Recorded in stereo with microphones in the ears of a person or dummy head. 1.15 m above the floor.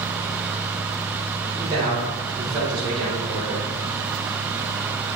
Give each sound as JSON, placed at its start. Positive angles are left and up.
{"t": 1.6, "sound": "a man speaking", "side_deg": -30, "distance_m": 3.5}